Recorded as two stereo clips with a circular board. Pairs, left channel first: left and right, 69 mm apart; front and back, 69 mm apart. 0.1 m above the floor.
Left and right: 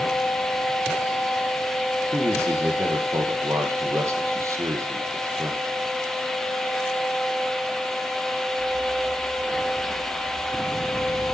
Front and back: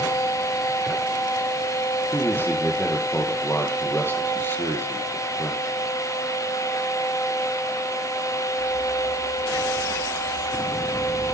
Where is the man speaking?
55° right, 3 m.